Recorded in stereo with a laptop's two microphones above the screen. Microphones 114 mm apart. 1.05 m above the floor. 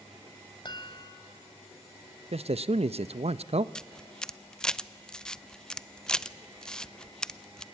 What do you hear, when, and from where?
0.7 s a chime: 40° left (ahead or behind), 2 m
2.3 s a man speaking: 60° right (ahead or behind), 0.7 m
3.8 s a camera shutter: 5° left (ahead or behind), 0.6 m